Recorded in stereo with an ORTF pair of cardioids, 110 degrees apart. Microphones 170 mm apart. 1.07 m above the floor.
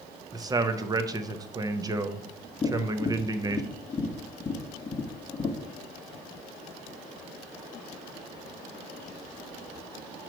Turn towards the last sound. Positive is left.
turn(degrees=20)